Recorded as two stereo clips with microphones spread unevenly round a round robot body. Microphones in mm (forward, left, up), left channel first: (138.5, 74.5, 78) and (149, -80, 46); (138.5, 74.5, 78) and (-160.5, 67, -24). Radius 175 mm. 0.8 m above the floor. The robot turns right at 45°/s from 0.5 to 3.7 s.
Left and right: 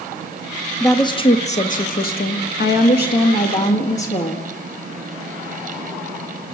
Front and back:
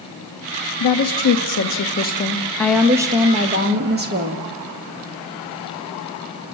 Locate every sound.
0.8 s a woman speaking: 15° left, 1.4 m; by 4.5 s 145° left, 1.4 m